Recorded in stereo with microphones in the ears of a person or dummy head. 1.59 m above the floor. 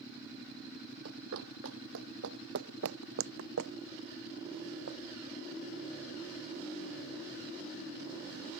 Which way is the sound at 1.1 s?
55° right (ahead or behind).